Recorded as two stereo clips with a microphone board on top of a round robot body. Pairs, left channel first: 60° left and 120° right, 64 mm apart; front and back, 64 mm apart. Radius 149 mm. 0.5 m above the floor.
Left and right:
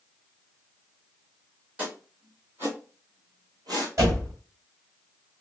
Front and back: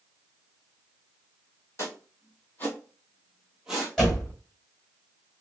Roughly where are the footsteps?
Ahead right.